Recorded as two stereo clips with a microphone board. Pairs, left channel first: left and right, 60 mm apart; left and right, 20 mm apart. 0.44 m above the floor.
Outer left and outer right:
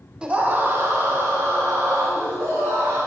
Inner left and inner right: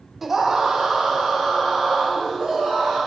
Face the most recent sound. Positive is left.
turn(degrees=-75)  # may be behind; listen again after turning